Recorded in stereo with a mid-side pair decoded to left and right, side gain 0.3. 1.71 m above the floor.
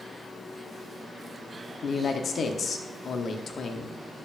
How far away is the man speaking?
About 0.9 m.